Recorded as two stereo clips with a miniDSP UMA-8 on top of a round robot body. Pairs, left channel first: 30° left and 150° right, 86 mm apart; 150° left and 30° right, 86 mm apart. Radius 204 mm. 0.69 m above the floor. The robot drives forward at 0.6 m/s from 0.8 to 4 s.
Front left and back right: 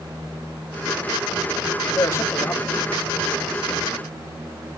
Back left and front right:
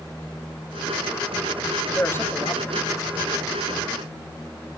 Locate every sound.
1.9 s a man speaking: 85° left, 2 m; by 3.2 s 105° left, 2 m